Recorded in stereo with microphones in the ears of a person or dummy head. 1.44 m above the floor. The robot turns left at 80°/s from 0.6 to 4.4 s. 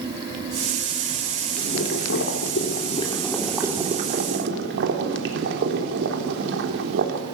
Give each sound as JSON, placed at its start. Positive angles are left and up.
{"t": 1.6, "sound": "boiling", "azimuth_deg": 145, "distance_m": 3.0}